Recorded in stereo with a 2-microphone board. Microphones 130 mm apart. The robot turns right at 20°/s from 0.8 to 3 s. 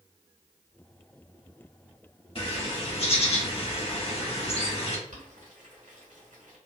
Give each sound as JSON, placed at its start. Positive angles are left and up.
{"t": 2.4, "sound": "a bird", "side_deg": 45, "distance_m": 1.0}
{"t": 5.1, "sound": "boiling", "side_deg": -80, "distance_m": 1.7}